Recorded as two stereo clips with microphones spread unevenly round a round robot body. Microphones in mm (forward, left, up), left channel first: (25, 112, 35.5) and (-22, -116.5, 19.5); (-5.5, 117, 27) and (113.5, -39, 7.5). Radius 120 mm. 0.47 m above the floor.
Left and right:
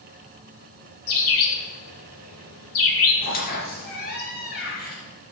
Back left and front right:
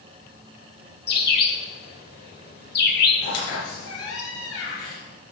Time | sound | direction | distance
1.1 | a bird | 95° left | 1.7 m
3.2 | a squeak | 130° left | 3.5 m